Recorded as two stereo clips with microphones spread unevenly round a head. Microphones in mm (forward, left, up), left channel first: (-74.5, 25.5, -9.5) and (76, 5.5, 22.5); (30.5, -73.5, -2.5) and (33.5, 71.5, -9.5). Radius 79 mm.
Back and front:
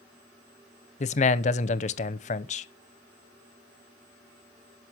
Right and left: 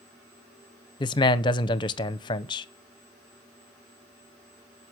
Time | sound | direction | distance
1.0 | a man speaking | 140° right | 0.7 m